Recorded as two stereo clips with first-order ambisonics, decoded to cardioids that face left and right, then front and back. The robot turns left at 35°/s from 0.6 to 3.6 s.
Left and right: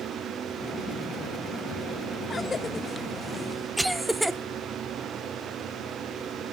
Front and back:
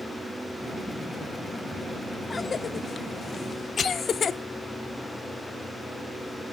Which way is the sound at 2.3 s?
45° left.